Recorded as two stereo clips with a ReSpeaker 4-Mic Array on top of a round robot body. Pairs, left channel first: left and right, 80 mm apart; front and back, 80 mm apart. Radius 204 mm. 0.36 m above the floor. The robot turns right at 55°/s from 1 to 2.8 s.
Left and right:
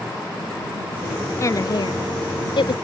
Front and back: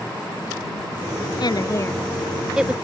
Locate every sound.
1.4 s a woman speaking: 35° left; by 2.8 s 110° left